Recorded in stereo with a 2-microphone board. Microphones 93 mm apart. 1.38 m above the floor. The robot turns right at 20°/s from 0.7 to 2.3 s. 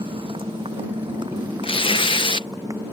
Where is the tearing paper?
75° left (ahead or behind); by 2.5 s 65° left (ahead or behind).